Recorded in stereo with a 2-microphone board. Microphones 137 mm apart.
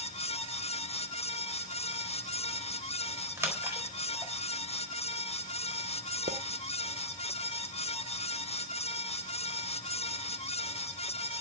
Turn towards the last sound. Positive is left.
turn(degrees=-65)  # may be behind; listen again after turning